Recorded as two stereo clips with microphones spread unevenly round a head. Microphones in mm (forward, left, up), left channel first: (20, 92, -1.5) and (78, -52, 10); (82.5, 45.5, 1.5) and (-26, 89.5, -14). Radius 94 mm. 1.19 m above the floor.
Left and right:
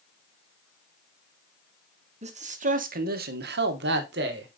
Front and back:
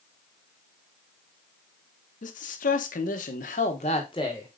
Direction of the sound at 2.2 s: 20° right.